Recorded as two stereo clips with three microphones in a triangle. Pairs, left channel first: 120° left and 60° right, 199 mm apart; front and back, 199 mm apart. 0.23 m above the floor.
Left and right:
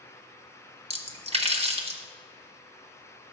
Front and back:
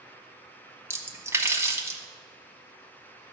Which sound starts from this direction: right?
A splash, at 0.9 s.